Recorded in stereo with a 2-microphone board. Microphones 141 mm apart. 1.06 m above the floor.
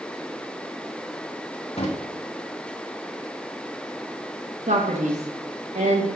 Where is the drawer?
45° left (ahead or behind), 1.0 m.